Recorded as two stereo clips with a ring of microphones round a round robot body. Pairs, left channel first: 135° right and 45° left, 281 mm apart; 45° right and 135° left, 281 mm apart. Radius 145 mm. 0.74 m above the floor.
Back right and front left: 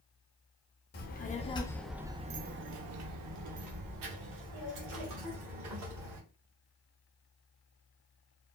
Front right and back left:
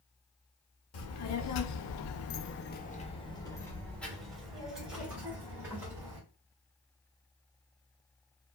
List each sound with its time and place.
0.9 s a child speaking: 80° right, 0.8 m; by 6.2 s 55° left, 2 m